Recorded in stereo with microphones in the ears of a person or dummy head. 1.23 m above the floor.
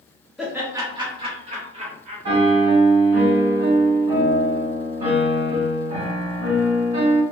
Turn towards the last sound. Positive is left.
turn(degrees=-45)  # may be behind; listen again after turning